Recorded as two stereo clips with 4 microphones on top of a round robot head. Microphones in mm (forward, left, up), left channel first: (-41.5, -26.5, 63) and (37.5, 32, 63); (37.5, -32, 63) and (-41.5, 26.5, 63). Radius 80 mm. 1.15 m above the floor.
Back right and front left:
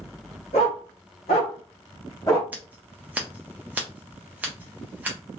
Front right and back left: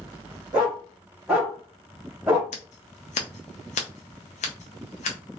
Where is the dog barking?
140° right, 1.6 m; by 2.4 s 160° right, 0.6 m.